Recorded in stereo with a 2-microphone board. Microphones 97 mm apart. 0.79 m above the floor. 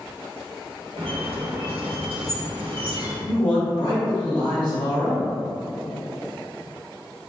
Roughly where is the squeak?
Right.